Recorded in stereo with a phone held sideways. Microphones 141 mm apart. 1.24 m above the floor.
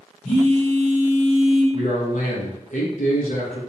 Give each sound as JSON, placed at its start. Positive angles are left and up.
{"t": 0.2, "sound": "a phone buzzing", "side_deg": 55, "distance_m": 2.0}
{"t": 1.7, "sound": "a man speaking", "side_deg": 65, "distance_m": 1.1}